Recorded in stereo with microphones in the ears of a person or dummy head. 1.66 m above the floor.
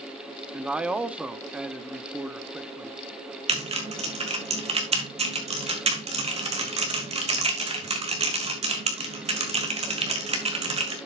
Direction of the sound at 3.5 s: 35° right (ahead or behind).